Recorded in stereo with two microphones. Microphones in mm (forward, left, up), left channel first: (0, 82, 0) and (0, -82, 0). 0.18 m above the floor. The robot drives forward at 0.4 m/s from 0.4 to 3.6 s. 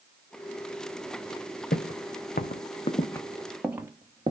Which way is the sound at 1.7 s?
80° left.